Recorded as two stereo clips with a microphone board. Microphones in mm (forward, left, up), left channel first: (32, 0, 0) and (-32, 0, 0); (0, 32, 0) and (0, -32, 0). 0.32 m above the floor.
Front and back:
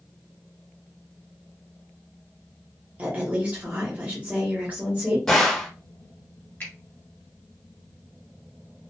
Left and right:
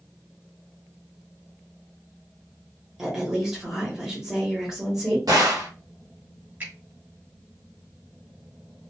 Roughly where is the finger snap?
Ahead right.